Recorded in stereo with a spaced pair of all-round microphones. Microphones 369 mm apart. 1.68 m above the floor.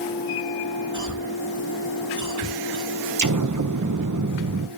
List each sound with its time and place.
0.9 s a cough: 50° right (ahead or behind), 3.5 m
3.2 s an explosion: 50° right (ahead or behind), 1.1 m